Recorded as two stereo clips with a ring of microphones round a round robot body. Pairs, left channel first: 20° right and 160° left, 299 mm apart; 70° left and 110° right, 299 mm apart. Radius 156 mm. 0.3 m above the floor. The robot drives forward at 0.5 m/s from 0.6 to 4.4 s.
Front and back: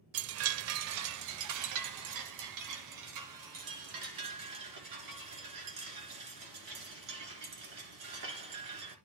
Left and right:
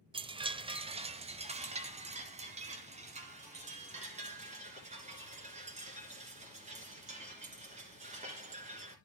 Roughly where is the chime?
Behind.